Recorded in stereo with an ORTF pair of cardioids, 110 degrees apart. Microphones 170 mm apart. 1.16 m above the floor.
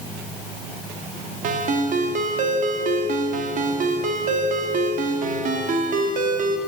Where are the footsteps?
I don't hear footsteps.